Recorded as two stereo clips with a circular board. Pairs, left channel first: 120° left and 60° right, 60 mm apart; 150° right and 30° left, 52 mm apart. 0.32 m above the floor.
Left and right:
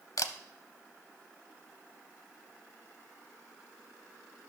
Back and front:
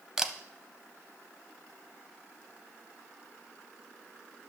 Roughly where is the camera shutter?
Left.